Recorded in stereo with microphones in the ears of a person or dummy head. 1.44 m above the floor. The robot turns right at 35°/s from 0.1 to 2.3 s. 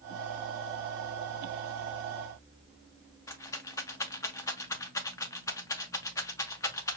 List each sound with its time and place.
3.3 s a rattle: 15° left (ahead or behind), 0.5 m